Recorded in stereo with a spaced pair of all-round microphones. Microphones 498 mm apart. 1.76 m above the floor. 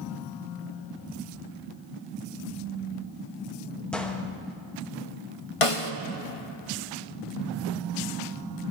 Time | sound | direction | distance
3.9 | a gunshot | centre (ahead or behind) | 0.8 m
5.6 | a snare drum | 75° left (ahead or behind) | 0.7 m